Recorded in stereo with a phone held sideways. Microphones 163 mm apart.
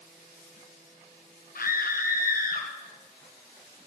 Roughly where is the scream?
Left.